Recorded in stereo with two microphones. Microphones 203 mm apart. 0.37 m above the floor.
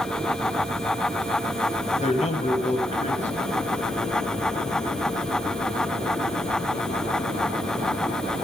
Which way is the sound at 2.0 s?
35° left (ahead or behind).